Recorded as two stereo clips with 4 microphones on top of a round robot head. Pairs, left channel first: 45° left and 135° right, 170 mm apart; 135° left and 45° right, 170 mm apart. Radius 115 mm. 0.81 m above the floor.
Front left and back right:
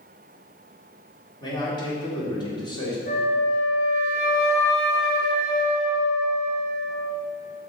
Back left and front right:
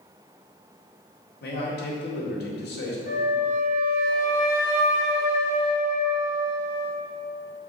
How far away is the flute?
About 2.5 m.